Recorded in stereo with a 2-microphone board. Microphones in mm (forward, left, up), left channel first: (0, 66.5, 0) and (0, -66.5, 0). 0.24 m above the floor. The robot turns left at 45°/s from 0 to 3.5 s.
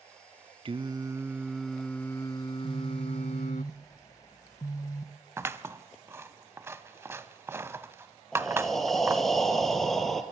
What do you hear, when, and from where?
0.7 s singing: 135° right, 0.7 m; by 3.6 s 95° left, 0.7 m
2.6 s a phone buzzing: 175° right, 1.0 m; by 5.1 s 150° left, 1.0 m
5.4 s scissors: 20° right (ahead or behind), 0.7 m
8.3 s breathing: centre (ahead or behind), 2 m